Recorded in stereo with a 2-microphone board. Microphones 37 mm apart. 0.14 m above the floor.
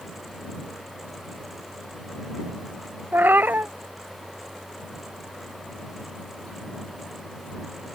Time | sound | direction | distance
3.1 | a cat meowing | 65° right (ahead or behind) | ?